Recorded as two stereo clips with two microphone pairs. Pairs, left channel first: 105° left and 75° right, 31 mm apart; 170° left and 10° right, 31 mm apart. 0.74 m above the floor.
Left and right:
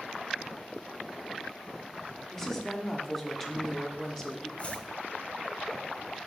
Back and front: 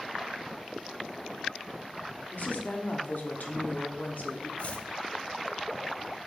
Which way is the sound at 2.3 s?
Straight behind.